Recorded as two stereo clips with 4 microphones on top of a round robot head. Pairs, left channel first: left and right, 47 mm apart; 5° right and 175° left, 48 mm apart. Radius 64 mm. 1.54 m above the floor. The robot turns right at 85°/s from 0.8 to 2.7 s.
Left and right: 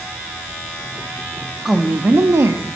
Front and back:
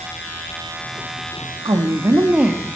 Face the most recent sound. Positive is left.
turn(degrees=-90)